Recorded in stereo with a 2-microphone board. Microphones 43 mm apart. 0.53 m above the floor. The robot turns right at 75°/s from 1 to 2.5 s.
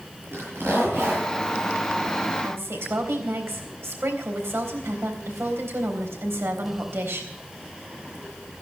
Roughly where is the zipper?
Right.